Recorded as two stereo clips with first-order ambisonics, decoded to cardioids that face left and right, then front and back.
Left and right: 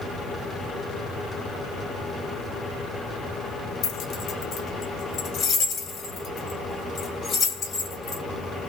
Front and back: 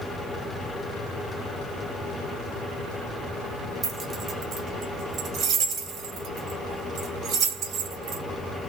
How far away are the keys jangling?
About 1.1 m.